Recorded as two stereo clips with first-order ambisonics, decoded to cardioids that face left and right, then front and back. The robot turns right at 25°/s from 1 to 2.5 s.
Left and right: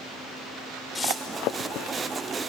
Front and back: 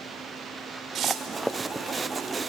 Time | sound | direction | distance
0.9 | tearing paper | 155° left | 1.4 m